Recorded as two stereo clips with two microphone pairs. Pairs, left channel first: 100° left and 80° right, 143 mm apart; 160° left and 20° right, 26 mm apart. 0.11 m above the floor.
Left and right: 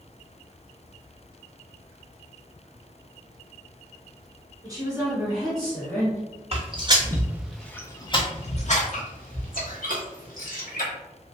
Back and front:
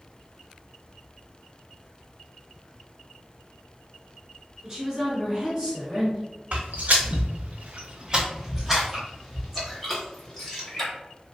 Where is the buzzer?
No buzzer in this recording.